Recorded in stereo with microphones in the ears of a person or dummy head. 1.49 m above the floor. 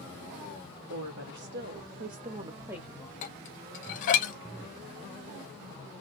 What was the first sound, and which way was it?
A woman speaking, 60° right (ahead or behind).